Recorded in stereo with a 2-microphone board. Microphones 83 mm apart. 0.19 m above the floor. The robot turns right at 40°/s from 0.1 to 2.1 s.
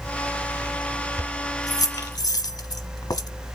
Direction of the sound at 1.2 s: 35° left (ahead or behind).